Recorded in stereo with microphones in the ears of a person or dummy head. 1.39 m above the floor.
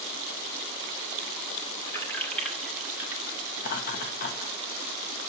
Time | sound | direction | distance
1.9 | keys jangling | 10° left (ahead or behind) | 2.5 m
3.6 | laughter | 50° left (ahead or behind) | 1.5 m